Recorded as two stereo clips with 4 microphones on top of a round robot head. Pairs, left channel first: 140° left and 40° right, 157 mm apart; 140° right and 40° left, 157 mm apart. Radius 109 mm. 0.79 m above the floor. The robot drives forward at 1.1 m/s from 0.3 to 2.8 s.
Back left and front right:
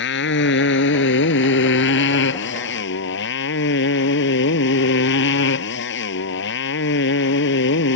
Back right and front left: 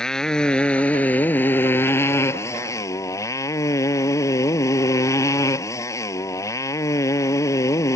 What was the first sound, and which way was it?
A motorcycle, 130° left.